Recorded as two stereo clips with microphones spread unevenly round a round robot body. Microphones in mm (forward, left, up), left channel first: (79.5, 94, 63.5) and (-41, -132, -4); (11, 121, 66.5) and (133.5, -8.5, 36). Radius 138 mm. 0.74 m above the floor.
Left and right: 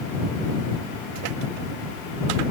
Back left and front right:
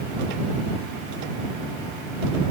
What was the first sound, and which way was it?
Only background noise.